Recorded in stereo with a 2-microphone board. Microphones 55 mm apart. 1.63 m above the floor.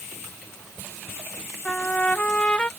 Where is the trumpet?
20° left (ahead or behind).